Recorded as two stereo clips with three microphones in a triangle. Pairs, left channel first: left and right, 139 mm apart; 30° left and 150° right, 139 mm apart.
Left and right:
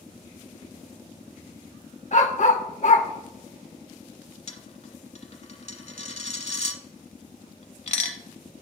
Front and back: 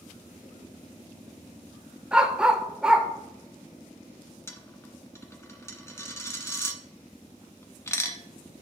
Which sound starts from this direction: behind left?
A dog barking, at 2.1 s.